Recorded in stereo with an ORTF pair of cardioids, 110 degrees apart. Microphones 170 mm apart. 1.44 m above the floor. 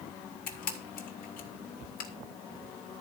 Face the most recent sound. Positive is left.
turn(degrees=65)